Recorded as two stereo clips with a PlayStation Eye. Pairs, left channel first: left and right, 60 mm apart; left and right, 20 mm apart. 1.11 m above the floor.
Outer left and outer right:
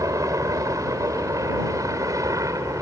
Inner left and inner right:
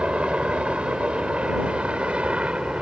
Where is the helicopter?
70° right (ahead or behind); by 2.8 s 65° right (ahead or behind).